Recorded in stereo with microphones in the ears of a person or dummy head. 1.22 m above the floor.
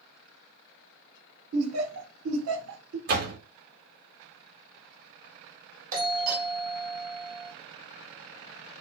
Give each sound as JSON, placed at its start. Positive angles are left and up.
{"t": 1.5, "sound": "laughter", "side_deg": -90, "distance_m": 0.7}
{"t": 3.1, "sound": "a door slam", "side_deg": -45, "distance_m": 0.7}
{"t": 5.9, "sound": "a doorbell", "side_deg": -45, "distance_m": 0.8}